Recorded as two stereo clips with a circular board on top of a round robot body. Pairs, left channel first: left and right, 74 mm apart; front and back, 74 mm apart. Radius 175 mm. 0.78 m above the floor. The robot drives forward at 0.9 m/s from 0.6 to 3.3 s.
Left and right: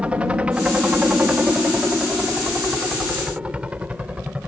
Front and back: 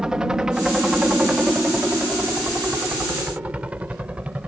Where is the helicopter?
120° right; by 4.5 s 135° right.